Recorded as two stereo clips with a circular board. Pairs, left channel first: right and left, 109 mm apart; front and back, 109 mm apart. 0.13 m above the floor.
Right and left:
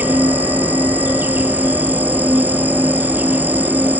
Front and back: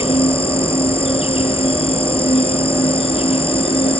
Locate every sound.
0.0 s an insect: 20° left